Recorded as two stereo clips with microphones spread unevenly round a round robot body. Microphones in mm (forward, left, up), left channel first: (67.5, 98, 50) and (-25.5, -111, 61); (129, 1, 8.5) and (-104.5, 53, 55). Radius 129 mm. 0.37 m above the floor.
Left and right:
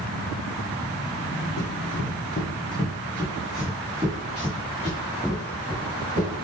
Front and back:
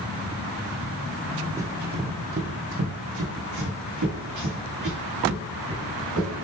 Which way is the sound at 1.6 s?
95° left.